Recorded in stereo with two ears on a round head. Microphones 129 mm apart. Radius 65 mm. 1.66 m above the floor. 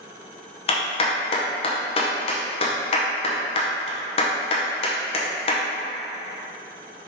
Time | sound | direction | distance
0.7 | a clap | 40° left (ahead or behind) | 0.8 m